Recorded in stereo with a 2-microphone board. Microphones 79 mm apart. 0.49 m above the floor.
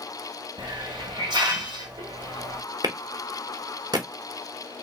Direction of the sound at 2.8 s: 55° right (ahead or behind).